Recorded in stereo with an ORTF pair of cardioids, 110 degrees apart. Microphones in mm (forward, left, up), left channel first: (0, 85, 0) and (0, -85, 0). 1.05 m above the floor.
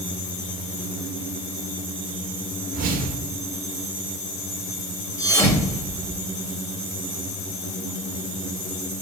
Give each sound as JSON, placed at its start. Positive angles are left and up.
{"t": 2.7, "sound": "a whoosh", "azimuth_deg": -65, "distance_m": 1.1}
{"t": 5.2, "sound": "a thud", "azimuth_deg": 15, "distance_m": 2.0}